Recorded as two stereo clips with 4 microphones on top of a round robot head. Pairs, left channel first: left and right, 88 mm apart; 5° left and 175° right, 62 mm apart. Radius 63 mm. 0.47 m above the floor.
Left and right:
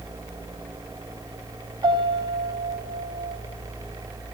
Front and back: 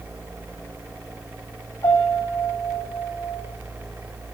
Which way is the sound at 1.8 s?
45° right.